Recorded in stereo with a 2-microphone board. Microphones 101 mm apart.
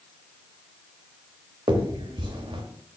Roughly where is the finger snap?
Right.